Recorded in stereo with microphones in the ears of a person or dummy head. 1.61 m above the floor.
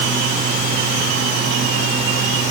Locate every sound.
Only background noise.